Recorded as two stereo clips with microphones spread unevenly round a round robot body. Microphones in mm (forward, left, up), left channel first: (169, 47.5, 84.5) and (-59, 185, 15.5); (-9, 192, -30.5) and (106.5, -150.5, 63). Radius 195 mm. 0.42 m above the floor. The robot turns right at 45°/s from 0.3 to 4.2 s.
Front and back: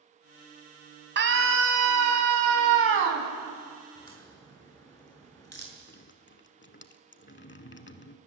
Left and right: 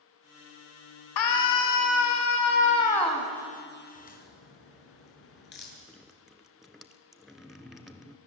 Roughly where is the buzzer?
I don't hear a buzzer.